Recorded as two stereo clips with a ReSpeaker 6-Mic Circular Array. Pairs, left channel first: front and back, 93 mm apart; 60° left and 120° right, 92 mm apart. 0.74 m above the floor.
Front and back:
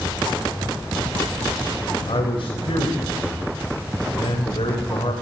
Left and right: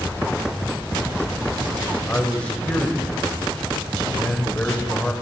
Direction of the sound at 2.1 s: 15° right.